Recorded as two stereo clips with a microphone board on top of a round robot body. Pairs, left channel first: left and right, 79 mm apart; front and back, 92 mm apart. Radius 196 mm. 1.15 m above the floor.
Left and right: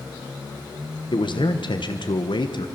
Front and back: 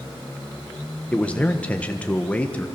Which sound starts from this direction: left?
A man speaking, at 1.1 s.